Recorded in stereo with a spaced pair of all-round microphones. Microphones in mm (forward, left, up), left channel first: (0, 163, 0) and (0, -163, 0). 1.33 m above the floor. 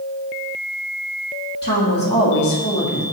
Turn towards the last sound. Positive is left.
turn(degrees=30)  # may be behind; listen again after turning